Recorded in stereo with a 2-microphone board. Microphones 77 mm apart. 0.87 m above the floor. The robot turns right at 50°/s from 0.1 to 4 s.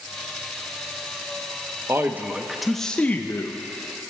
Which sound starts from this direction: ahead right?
A man speaking, at 1.9 s.